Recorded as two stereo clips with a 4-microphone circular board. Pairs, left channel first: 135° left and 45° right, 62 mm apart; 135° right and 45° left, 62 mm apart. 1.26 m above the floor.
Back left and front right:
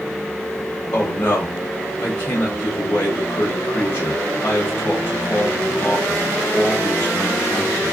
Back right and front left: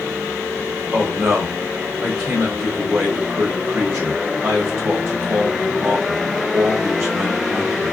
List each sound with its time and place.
0.9 s a man speaking: 80° left, 1.1 m